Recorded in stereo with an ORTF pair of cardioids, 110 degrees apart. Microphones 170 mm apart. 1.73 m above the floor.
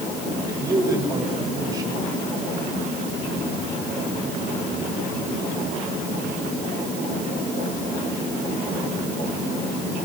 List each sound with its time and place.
0.5 s a man speaking: 20° right, 9 m